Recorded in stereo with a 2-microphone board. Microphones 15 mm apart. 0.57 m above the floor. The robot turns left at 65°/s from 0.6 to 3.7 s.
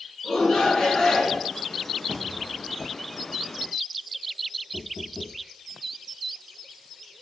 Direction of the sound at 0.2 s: 80° left.